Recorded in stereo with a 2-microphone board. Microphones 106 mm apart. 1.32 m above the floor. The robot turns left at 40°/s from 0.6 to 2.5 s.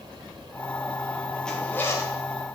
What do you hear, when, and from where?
1.4 s a zipper: 5° left (ahead or behind), 1.7 m; by 2.1 s 35° left (ahead or behind), 1.7 m